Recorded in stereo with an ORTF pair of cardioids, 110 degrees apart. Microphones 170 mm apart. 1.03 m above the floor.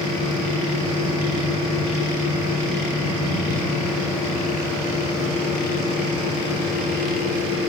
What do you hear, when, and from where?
0.0 s a fan: 60° left, 7 m